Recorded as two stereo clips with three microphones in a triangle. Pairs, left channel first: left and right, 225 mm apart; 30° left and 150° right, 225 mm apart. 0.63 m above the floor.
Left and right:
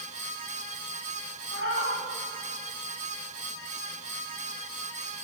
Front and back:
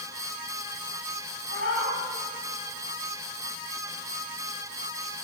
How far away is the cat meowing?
About 1.4 m.